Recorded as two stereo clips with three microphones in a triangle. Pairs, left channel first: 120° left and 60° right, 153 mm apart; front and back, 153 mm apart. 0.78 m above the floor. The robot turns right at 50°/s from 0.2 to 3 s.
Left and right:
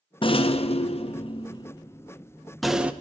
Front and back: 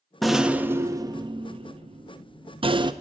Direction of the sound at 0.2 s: 90° left.